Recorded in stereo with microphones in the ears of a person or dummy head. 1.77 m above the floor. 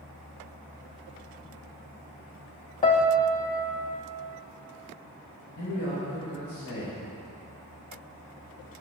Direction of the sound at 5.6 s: 80° left.